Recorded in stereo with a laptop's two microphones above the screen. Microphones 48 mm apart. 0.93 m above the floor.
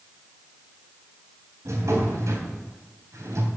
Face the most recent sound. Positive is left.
turn(degrees=-80)